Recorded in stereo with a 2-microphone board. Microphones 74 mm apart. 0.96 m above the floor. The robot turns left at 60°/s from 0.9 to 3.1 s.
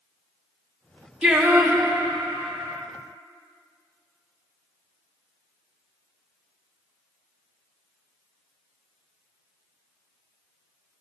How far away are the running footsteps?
No running footsteps in this recording.